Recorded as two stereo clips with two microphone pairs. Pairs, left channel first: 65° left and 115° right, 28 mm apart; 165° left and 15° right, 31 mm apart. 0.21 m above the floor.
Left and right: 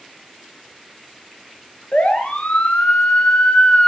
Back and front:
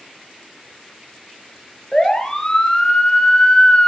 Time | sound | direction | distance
1.9 | a siren | 90° left | 4 m